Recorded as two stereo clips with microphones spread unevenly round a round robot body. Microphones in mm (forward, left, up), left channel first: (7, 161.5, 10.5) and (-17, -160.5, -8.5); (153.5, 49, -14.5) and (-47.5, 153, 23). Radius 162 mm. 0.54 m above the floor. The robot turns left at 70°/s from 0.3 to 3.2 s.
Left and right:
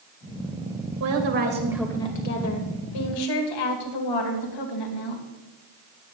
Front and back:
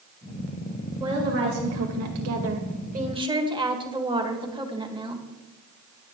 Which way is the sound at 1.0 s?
125° right.